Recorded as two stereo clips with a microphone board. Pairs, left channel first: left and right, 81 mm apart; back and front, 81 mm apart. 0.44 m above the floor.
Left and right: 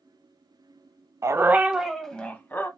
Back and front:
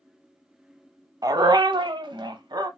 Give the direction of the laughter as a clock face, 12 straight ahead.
No laughter in this recording.